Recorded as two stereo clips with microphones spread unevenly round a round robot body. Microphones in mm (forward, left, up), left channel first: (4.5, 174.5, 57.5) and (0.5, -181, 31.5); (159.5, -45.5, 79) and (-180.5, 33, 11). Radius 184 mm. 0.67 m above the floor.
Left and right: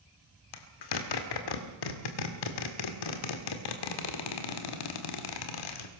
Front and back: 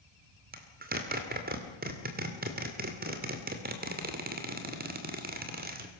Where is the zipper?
105° left, 2 m.